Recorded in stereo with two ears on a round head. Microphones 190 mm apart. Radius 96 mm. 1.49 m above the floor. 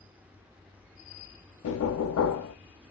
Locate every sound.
1.6 s knocking: 65° left (ahead or behind), 0.5 m